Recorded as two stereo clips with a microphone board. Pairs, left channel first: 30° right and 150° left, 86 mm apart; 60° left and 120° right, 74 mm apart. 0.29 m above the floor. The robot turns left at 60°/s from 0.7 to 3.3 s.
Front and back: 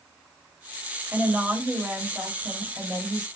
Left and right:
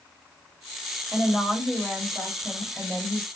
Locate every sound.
1.1 s a woman speaking: 150° right, 1.0 m; by 3.3 s 80° left, 1.0 m